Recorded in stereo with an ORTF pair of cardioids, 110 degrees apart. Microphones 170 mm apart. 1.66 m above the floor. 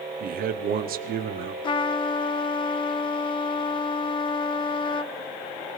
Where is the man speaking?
60° right, 0.9 m.